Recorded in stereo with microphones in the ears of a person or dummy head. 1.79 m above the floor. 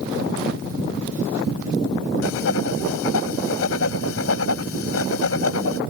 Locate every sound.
2.2 s writing: 75° left (ahead or behind)